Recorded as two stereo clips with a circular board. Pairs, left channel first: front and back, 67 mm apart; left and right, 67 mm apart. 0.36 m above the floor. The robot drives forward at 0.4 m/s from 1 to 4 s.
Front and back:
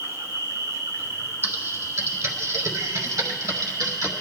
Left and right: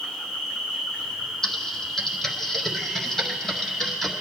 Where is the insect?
165° left, 2.5 m; by 4.2 s 170° left, 3.5 m.